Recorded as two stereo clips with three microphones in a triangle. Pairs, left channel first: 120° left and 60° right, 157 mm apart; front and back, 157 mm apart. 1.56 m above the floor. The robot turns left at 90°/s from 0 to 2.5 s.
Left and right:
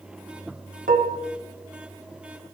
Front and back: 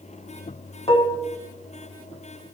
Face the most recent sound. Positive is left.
turn(degrees=165)